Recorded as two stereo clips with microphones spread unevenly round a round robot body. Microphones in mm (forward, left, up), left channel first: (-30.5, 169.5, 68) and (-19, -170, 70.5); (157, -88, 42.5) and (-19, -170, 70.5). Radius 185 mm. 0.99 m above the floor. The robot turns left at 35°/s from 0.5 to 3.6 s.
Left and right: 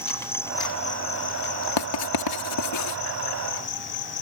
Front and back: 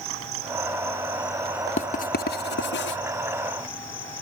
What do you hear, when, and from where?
0.0 s an insect: 175° left; by 4.2 s 65° left
1.8 s writing: 90° left; by 3.0 s 45° left